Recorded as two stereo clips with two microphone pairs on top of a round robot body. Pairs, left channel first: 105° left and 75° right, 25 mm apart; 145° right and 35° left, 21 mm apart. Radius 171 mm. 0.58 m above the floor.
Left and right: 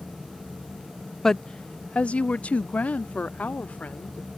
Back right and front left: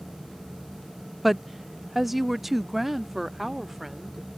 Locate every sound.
1.2 s a woman speaking: 35° left; by 4.3 s 110° left